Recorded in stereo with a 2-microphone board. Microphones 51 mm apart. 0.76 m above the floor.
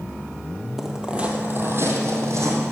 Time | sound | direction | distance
0.8 | footsteps | centre (ahead or behind) | 1.6 m